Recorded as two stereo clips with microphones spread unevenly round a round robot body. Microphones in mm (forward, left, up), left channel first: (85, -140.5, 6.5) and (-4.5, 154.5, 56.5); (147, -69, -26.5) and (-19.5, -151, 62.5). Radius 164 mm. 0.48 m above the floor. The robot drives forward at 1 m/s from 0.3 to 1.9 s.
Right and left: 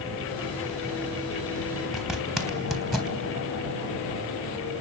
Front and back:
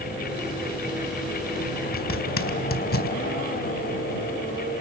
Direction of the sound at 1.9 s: 15° left.